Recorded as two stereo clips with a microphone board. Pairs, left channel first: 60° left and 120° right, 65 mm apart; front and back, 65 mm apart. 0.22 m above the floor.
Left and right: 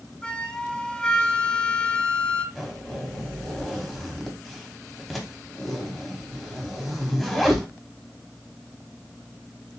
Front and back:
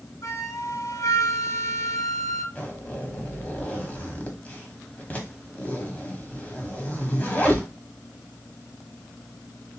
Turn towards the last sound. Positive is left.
turn(degrees=-30)